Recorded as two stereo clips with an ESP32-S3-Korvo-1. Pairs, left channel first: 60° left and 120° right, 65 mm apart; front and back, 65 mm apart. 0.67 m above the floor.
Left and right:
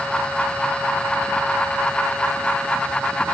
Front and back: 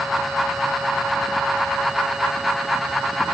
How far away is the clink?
I don't hear a clink.